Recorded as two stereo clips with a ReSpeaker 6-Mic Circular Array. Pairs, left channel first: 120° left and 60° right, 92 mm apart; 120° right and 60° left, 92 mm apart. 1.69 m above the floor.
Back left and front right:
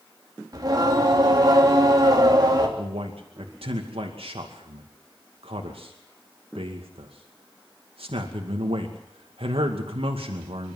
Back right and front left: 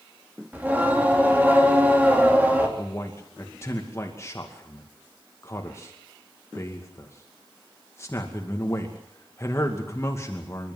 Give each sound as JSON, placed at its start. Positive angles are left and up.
{"t": 0.5, "sound": "singing", "azimuth_deg": -15, "distance_m": 3.5}
{"t": 2.8, "sound": "a man speaking", "azimuth_deg": -60, "distance_m": 2.5}